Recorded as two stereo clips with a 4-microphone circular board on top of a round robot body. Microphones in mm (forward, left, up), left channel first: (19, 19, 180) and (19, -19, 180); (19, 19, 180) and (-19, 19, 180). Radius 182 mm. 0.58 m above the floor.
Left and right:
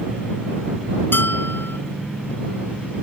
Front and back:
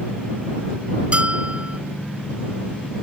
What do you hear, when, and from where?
1.1 s a bell: 120° left